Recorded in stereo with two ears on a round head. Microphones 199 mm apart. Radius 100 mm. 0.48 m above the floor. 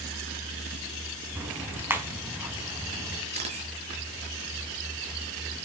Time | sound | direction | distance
1.4 | ticking | 10° right (ahead or behind) | 4 m
3.3 | a camera shutter | 30° right (ahead or behind) | 7.5 m